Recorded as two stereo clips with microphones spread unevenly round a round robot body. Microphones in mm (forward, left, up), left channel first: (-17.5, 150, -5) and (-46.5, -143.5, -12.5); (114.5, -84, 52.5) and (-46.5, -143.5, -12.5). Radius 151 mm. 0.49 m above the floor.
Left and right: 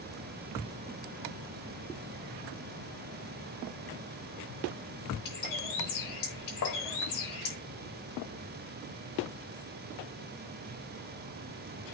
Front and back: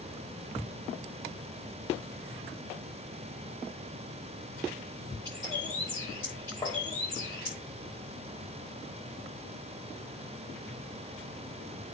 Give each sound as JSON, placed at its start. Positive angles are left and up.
{"t": 5.2, "sound": "a bird", "azimuth_deg": 105, "distance_m": 6.5}
{"t": 6.6, "sound": "tapping", "azimuth_deg": 105, "distance_m": 2.5}